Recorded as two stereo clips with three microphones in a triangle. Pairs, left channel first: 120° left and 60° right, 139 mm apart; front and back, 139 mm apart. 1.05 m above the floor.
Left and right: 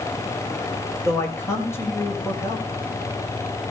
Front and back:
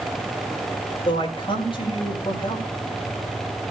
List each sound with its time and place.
1.1 s a man speaking: 50° left, 6 m